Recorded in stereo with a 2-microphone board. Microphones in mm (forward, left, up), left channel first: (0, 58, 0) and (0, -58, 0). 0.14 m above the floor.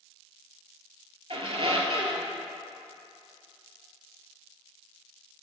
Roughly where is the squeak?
Right.